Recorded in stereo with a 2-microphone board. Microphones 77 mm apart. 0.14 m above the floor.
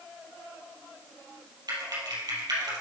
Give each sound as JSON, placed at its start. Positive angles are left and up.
{"t": 1.7, "sound": "typing on a keyboard", "side_deg": -60, "distance_m": 3.5}